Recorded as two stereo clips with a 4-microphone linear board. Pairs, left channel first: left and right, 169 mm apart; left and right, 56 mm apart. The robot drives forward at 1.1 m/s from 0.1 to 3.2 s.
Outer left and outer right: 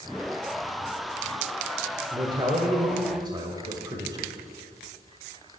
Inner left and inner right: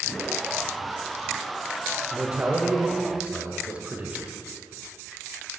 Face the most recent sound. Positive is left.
turn(degrees=-25)  # may be behind; listen again after turning